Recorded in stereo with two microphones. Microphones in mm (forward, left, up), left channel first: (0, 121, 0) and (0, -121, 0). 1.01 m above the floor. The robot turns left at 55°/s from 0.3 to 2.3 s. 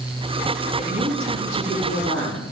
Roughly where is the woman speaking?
Ahead right.